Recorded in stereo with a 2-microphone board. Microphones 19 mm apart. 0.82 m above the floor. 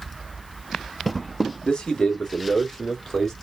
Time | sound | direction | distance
1.6 | a man speaking | 60° left (ahead or behind) | 1.8 m